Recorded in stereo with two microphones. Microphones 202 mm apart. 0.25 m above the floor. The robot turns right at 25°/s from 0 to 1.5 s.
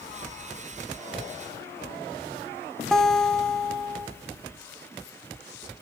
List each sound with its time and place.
2.9 s a guitar: centre (ahead or behind), 1.5 m